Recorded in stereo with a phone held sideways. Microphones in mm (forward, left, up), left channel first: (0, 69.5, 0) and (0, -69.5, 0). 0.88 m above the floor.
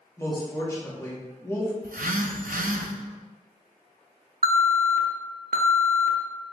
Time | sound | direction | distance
0.2 | a woman speaking | 20° left (ahead or behind) | 1.2 m
1.8 | a phone buzzing | 75° right (ahead or behind) | 0.5 m
4.4 | an alarm | 80° right | 0.6 m